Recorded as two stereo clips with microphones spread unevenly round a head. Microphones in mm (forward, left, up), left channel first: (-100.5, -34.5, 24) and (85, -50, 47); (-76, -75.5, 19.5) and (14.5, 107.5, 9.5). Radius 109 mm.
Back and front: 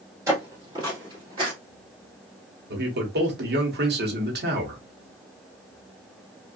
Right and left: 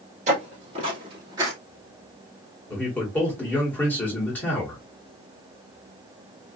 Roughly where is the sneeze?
No sneeze in this recording.